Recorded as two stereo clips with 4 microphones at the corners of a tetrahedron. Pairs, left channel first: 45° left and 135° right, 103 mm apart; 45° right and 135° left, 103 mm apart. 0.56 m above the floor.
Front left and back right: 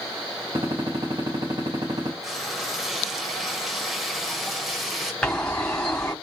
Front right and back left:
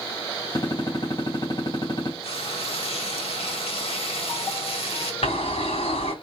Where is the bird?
35° right, 3.5 m.